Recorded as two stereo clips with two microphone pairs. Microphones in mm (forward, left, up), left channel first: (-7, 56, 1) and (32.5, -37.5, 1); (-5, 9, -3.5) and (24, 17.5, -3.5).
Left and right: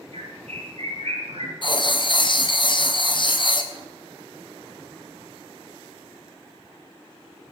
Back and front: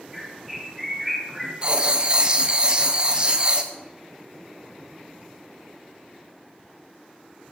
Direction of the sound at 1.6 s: 75° left.